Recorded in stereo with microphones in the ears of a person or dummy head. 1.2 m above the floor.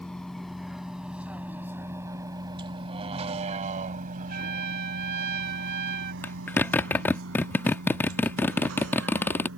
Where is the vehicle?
5° left (ahead or behind); by 9.6 s 80° right.